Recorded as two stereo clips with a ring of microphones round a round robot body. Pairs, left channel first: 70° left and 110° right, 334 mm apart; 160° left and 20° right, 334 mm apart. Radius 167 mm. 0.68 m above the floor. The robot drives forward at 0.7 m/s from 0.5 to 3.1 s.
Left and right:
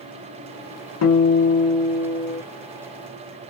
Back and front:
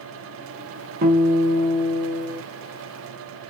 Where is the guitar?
35° left, 1.5 m; by 2.4 s 85° left, 1.0 m.